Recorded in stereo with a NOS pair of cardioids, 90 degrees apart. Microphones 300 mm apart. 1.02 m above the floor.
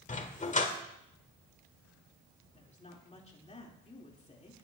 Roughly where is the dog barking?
Ahead left.